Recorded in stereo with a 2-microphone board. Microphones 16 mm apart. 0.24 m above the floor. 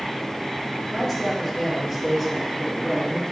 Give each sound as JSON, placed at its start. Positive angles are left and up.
{"t": 0.9, "sound": "a man speaking", "side_deg": 10, "distance_m": 3.5}